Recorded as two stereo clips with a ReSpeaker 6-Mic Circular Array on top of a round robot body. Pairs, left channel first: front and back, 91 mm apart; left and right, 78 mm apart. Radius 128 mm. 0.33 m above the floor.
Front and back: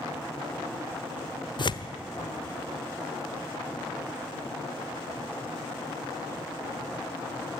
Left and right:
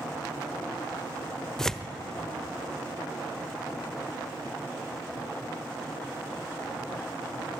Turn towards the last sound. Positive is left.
turn(degrees=10)